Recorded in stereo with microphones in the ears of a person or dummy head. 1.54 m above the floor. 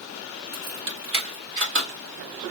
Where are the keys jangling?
60° right (ahead or behind), 1.9 m.